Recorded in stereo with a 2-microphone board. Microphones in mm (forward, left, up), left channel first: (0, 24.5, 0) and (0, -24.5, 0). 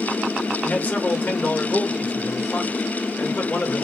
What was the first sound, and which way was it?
A man speaking, 30° left (ahead or behind).